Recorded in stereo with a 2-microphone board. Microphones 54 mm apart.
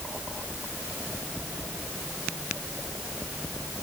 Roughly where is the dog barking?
I don't hear a dog barking.